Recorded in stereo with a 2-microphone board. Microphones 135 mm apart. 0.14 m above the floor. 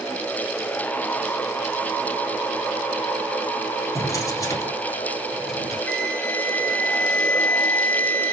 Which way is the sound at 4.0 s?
25° left (ahead or behind).